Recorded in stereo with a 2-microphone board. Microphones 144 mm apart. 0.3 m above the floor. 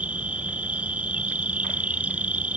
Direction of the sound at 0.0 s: 10° right (ahead or behind).